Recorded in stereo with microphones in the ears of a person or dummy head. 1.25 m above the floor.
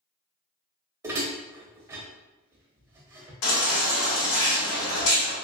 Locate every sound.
1.0 s dishes clattering: 15° right (ahead or behind), 0.6 m
3.4 s a baby crying: 70° left (ahead or behind), 1.6 m